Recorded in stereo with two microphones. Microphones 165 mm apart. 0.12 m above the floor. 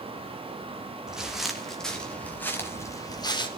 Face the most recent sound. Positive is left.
turn(degrees=30)  # may be behind; listen again after turning